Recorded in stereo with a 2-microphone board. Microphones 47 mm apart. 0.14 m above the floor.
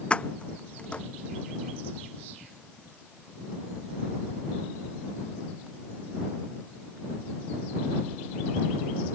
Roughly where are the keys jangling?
Left.